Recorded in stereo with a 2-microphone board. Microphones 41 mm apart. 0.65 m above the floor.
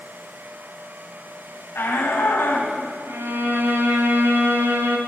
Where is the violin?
70° right (ahead or behind), 1.6 m.